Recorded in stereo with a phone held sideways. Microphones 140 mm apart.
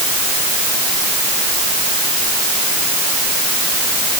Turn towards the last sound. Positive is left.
No sound to turn to.